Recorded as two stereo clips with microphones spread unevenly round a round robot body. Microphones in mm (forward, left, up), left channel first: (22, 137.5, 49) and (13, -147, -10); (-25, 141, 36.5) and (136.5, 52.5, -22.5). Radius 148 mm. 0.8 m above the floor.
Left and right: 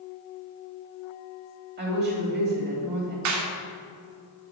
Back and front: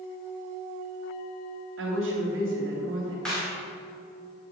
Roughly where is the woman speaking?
Ahead right.